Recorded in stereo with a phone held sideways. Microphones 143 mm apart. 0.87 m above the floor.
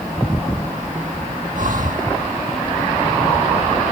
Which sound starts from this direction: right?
Breathing, at 1.5 s.